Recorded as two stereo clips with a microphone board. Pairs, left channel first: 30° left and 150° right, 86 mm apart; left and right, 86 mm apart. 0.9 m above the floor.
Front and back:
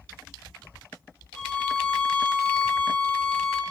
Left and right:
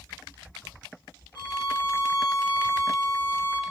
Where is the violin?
105° left, 1.0 m.